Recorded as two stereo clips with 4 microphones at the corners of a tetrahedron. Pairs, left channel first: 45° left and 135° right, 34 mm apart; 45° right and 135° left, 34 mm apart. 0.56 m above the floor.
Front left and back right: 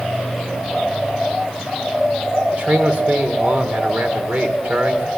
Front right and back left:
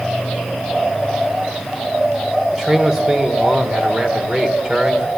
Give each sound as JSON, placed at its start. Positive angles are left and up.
{"t": 2.5, "sound": "a man speaking", "azimuth_deg": -155, "distance_m": 2.0}